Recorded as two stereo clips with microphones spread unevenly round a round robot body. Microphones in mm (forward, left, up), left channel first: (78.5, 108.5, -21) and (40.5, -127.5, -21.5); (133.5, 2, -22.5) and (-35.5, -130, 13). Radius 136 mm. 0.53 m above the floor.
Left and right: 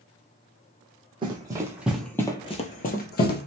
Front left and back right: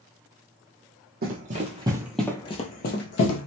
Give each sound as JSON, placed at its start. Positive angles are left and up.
{"t": 1.2, "sound": "running footsteps", "azimuth_deg": -165, "distance_m": 0.8}